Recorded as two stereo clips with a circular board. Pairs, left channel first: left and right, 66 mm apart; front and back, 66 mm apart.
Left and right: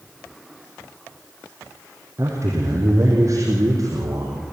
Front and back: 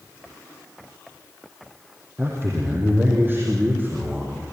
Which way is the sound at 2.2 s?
130° right.